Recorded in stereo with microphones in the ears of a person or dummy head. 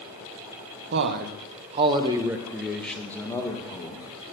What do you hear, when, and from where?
0.9 s a man speaking: 65° right (ahead or behind), 1.0 m; by 4.1 s 20° left (ahead or behind), 1.7 m